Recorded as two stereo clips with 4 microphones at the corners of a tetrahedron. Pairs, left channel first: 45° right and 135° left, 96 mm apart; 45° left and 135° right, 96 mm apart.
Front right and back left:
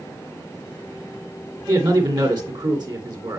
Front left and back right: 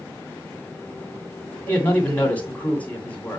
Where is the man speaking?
110° left, 2.5 m.